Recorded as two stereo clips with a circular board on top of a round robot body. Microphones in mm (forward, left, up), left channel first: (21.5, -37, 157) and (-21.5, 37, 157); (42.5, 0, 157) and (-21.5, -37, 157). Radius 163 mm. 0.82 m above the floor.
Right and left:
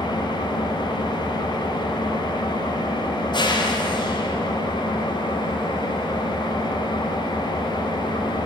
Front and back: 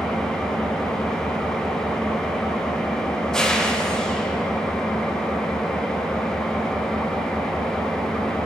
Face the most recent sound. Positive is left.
turn(degrees=-50)